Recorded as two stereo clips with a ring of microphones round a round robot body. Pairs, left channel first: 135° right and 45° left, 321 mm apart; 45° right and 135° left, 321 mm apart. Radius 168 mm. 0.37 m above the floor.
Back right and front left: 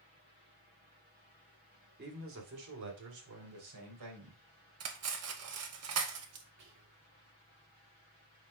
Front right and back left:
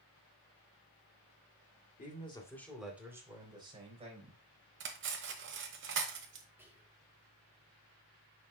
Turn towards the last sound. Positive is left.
turn(degrees=55)